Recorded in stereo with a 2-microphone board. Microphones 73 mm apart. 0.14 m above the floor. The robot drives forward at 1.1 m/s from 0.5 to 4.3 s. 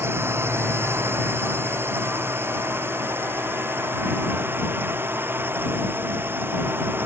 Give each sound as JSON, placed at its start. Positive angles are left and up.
{"t": 0.0, "sound": "a drone", "side_deg": -35}